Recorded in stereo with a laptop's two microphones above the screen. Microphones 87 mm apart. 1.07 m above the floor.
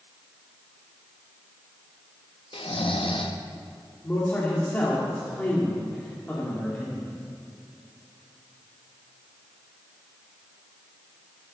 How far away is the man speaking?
About 2 m.